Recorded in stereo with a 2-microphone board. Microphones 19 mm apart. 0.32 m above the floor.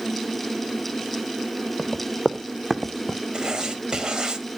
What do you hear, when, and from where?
1.8 s running footsteps: 30° right (ahead or behind), 2.5 m; by 3.2 s 5° left (ahead or behind), 1.0 m
3.3 s writing: 45° right (ahead or behind), 1.2 m